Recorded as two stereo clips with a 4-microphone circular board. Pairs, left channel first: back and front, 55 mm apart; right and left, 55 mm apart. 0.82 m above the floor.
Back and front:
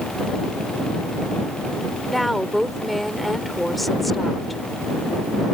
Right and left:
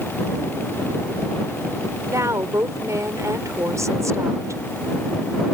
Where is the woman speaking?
90° left.